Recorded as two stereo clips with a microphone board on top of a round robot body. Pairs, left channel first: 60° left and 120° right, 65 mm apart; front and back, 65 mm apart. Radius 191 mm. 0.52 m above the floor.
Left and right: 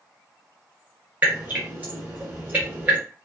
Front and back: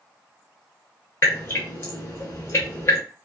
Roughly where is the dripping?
Ahead right.